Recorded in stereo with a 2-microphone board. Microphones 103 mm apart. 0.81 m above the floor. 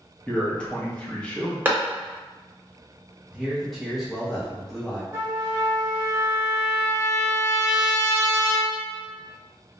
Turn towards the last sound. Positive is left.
turn(degrees=-25)  # may be behind; listen again after turning